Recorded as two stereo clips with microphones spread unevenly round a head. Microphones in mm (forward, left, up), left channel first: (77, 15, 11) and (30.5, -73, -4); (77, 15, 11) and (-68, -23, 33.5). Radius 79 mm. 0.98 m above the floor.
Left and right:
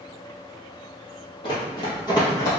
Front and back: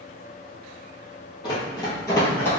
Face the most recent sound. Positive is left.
turn(degrees=100)